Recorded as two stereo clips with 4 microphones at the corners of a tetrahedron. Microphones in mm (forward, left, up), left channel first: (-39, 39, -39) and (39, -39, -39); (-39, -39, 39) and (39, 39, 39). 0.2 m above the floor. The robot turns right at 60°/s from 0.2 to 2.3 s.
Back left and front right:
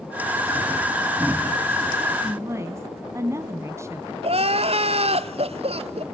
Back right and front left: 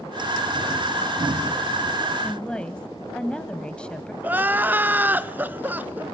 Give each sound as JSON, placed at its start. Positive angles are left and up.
{"t": 2.2, "sound": "a woman speaking", "azimuth_deg": -65, "distance_m": 1.6}
{"t": 4.2, "sound": "crying", "azimuth_deg": -30, "distance_m": 0.9}